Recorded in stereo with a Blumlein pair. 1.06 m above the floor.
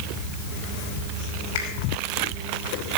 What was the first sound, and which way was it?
A finger snap, 55° left.